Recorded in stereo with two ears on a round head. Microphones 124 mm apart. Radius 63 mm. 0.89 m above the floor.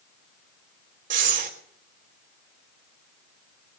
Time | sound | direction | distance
1.1 | breathing | 55° right (ahead or behind) | 3 m